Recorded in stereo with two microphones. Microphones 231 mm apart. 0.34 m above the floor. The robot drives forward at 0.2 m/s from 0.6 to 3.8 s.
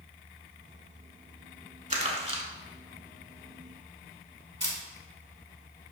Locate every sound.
1.9 s crumpling: 30° right (ahead or behind), 0.7 m; by 2.4 s 25° right (ahead or behind), 0.8 m
4.6 s a camera shutter: 50° right (ahead or behind), 1.0 m